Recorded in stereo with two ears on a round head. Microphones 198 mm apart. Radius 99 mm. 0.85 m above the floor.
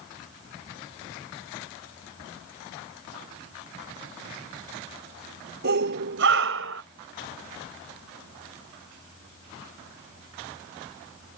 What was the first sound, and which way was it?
A shout, 50° right (ahead or behind).